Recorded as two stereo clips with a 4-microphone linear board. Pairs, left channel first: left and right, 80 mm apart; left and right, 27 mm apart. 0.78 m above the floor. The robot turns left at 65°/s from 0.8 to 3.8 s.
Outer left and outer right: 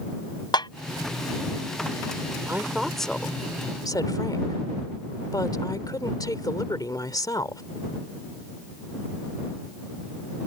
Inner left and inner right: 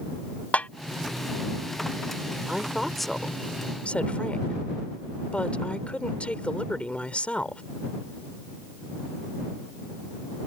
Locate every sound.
0.5 s a snare drum: 75° left (ahead or behind)
2.5 s a woman speaking: 150° right; by 7.6 s 120° left